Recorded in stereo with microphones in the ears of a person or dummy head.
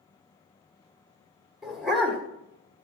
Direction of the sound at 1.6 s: Centre (ahead or behind).